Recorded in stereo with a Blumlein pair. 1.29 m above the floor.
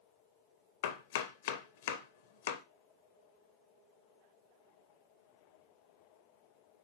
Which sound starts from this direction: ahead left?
Chopping, at 0.8 s.